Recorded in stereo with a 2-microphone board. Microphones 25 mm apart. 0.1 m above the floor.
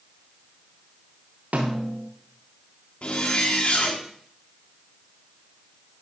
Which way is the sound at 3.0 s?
50° left (ahead or behind).